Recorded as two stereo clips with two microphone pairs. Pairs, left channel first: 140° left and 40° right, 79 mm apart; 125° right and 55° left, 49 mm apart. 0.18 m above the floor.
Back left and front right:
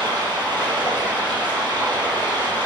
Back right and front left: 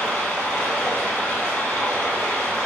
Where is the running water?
60° right, 1.7 m.